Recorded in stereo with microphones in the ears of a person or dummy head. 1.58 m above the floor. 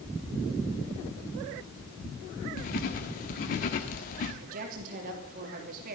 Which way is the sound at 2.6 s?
35° left (ahead or behind).